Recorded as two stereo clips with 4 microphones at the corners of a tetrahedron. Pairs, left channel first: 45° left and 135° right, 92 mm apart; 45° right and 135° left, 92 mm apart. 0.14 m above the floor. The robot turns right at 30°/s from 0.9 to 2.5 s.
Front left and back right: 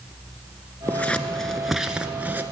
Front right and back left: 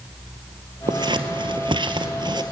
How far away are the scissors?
About 0.9 m.